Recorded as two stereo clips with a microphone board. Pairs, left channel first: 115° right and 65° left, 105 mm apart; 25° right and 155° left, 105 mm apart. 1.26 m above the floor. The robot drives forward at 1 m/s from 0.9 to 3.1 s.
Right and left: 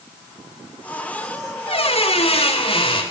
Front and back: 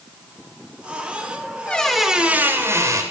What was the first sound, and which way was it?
A squeak, 100° right.